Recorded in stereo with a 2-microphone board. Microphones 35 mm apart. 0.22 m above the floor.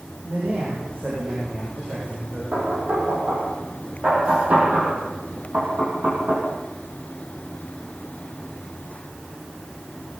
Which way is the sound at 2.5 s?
50° right (ahead or behind).